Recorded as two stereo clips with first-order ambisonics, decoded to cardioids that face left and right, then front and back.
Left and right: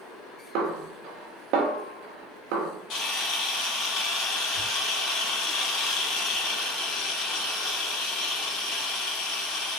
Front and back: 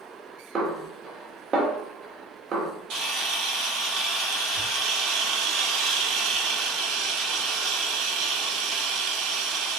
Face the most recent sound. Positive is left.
turn(degrees=135)